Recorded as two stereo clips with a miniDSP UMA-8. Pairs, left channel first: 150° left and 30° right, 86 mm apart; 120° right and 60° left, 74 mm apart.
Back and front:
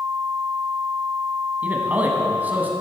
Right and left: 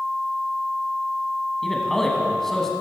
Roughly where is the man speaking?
Ahead right.